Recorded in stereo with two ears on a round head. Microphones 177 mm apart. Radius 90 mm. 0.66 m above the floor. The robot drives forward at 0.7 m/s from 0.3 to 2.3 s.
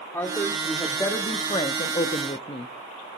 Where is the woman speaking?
15° left (ahead or behind), 1.5 m; by 2.7 s 30° left (ahead or behind), 0.7 m.